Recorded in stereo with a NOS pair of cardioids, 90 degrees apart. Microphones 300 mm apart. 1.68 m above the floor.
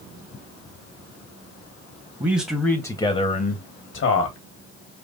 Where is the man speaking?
15° right, 1.6 m; by 4.4 s 60° left, 1.6 m.